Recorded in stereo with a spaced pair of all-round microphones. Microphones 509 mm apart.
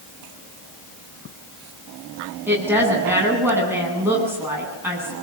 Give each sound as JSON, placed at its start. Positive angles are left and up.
{"t": 2.5, "sound": "a woman speaking", "side_deg": -5, "distance_m": 9.5}